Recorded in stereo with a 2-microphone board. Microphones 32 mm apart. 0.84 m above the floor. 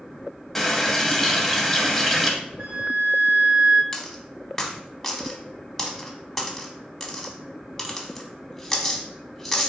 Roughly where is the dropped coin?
Centre.